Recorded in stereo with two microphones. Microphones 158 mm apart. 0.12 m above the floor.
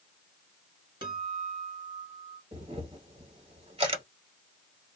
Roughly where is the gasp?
No gasp in this recording.